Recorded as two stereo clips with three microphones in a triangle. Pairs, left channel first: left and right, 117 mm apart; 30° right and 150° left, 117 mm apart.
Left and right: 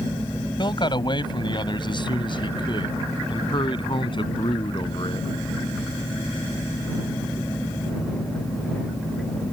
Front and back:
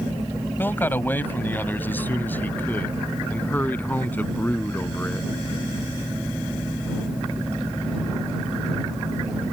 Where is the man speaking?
40° left; by 5.3 s 45° left.